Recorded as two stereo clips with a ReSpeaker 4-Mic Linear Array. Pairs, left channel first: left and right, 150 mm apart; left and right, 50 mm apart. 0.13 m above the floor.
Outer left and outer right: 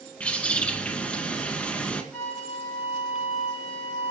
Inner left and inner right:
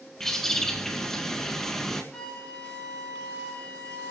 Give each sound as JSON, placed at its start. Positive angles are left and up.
{"t": 0.2, "sound": "a bird", "side_deg": 10, "distance_m": 1.9}
{"t": 2.1, "sound": "a flute", "side_deg": 10, "distance_m": 7.5}